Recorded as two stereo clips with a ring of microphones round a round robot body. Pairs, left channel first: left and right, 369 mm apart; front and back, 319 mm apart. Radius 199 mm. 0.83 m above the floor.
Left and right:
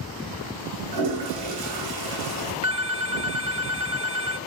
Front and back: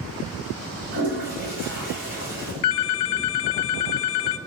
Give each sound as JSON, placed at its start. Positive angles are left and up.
{"t": 0.9, "sound": "a toilet flushing", "azimuth_deg": -115, "distance_m": 3.0}
{"t": 2.6, "sound": "a phone ringing", "azimuth_deg": -15, "distance_m": 0.7}